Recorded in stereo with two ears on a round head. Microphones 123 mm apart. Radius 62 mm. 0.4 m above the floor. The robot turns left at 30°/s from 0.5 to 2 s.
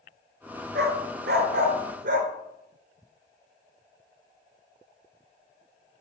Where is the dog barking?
70° right (ahead or behind), 1.5 m.